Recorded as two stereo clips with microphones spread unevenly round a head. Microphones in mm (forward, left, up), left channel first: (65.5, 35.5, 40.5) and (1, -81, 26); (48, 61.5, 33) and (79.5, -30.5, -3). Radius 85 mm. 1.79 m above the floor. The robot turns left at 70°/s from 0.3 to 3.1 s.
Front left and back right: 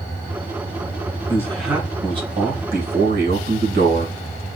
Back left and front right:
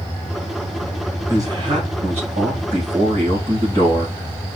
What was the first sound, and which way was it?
A man speaking, 5° right.